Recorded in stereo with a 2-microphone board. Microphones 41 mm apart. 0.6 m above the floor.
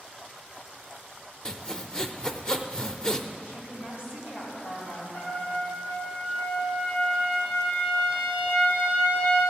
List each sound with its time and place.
1.4 s sawing: 20° left (ahead or behind), 0.6 m
3.4 s a woman speaking: 55° left (ahead or behind), 3.5 m
5.1 s a trumpet: 65° left (ahead or behind), 3.5 m